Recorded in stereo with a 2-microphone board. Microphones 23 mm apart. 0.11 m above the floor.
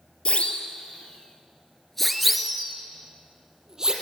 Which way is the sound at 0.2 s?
55° left (ahead or behind).